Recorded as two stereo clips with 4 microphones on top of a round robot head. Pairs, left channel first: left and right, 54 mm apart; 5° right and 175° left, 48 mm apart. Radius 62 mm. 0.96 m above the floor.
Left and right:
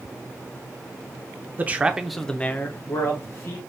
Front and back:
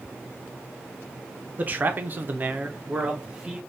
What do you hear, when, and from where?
1.6 s a man speaking: 140° right, 0.7 m; by 3.6 s 105° left, 1.1 m